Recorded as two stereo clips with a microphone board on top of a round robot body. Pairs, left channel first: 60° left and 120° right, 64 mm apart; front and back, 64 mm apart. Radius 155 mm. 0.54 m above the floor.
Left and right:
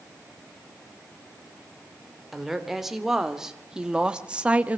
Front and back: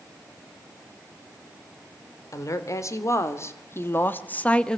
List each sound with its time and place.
2.3 s a woman speaking: 35° right, 3 m; by 4.8 s 75° right, 1.3 m